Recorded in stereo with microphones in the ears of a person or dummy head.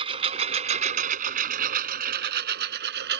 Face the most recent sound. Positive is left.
turn(degrees=-60)  # may be behind; listen again after turning